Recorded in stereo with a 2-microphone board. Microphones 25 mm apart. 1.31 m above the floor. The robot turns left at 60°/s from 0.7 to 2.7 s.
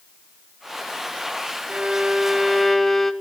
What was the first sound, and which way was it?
A violin, 125° right.